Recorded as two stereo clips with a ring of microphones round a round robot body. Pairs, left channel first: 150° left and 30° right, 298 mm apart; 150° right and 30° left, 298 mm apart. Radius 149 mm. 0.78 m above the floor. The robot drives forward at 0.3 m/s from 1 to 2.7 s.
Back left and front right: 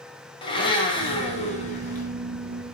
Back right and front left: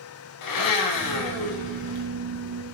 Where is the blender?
135° right, 1.2 m; by 2.1 s 145° right, 1.5 m.